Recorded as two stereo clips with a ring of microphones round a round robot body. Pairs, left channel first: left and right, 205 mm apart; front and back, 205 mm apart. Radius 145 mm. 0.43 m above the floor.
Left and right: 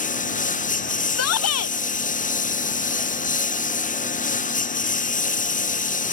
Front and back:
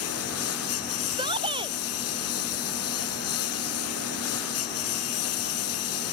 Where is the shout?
105° left.